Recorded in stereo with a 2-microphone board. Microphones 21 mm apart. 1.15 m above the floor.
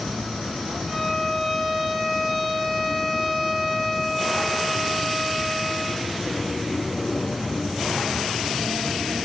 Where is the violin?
15° right (ahead or behind), 9 m.